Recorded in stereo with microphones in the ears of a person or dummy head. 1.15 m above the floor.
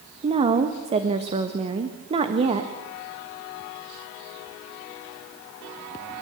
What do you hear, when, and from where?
0.2 s a woman speaking: 35° right (ahead or behind), 1.4 m